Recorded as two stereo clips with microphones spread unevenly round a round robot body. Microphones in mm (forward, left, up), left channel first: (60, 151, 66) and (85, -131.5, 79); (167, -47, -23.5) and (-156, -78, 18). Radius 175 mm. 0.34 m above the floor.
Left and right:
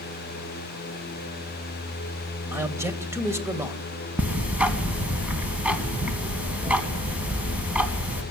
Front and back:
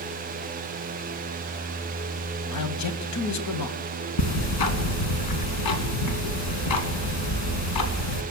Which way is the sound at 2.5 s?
5° right.